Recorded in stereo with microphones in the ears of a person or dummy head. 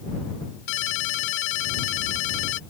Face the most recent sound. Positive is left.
turn(degrees=70)  # may be behind; listen again after turning